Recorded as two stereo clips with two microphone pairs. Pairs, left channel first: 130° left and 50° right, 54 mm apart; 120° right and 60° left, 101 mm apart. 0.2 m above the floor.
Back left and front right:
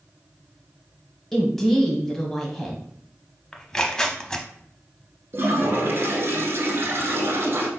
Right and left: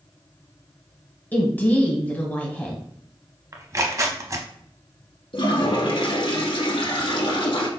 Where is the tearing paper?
70° left, 0.5 m.